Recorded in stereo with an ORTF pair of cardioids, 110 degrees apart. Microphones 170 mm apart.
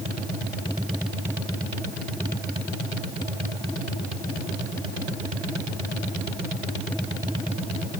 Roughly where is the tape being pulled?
I don't hear tape being pulled.